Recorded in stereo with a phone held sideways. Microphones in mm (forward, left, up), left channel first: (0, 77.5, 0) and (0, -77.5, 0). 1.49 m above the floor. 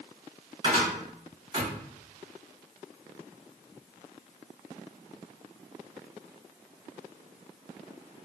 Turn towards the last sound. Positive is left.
turn(degrees=-30)  # may be behind; listen again after turning